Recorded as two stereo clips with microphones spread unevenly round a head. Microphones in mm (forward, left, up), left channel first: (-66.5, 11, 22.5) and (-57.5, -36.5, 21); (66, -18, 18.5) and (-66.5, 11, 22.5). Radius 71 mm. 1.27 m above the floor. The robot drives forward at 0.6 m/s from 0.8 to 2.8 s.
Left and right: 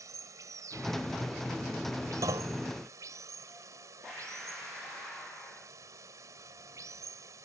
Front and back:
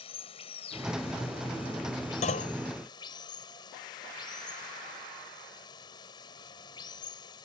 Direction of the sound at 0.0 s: 65° right.